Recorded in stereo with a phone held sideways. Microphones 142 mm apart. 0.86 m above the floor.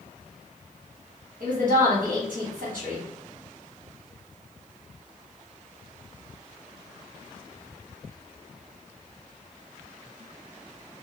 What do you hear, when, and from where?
1.4 s a woman speaking: 70° right (ahead or behind), 1.4 m